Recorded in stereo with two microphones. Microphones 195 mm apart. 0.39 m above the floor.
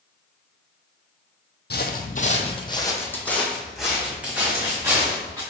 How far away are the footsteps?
About 0.7 m.